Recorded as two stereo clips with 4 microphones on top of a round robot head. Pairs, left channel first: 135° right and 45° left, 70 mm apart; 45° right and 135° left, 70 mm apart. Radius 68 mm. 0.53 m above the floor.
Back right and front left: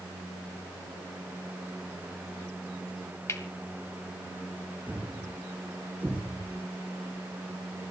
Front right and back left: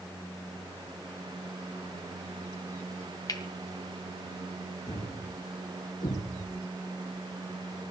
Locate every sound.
3.3 s cutlery clinking: 85° right, 2 m
4.9 s a thud: 25° right, 8.5 m